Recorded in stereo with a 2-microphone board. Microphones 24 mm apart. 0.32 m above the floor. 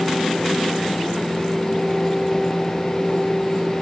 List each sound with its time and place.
Only background noise.